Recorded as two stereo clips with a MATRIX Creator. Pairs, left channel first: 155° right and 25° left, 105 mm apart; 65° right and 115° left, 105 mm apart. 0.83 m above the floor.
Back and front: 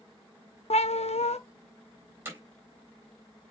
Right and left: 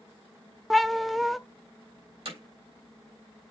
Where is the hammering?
90° left, 3.5 m.